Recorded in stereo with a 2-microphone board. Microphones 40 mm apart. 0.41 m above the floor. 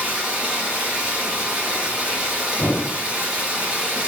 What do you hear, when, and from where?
0.0 s running water: 30° right (ahead or behind), 2.5 m
2.6 s a thud: 65° left (ahead or behind), 0.9 m